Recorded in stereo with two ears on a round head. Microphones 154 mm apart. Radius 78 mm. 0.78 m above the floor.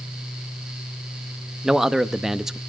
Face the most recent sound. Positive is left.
turn(degrees=-5)  # may be behind; listen again after turning